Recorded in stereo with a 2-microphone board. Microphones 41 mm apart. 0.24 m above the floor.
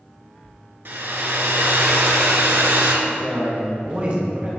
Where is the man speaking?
35° right (ahead or behind), 1.9 m.